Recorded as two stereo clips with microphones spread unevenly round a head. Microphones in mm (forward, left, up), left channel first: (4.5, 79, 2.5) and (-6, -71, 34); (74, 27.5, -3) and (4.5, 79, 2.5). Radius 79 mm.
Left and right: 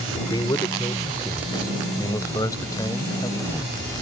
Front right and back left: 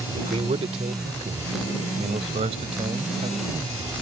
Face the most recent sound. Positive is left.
turn(degrees=155)